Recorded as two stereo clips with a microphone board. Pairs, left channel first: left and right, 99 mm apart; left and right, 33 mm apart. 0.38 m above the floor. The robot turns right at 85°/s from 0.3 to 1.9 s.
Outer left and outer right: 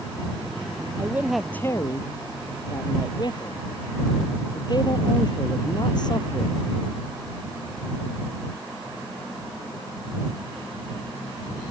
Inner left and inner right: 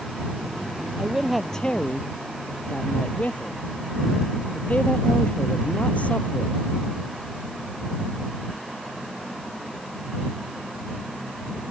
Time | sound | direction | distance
1.0 | a man speaking | 30° right | ?